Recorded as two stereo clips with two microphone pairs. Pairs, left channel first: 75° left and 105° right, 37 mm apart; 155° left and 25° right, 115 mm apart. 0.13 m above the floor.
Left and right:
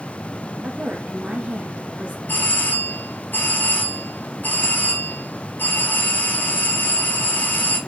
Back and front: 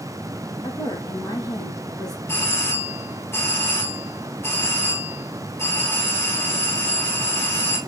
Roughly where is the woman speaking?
Behind right.